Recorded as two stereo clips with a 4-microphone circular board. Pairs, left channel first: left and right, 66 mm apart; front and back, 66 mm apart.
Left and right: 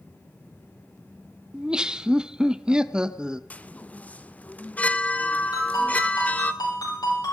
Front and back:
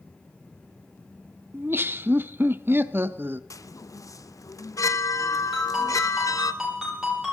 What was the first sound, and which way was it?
Laughter, 160° right.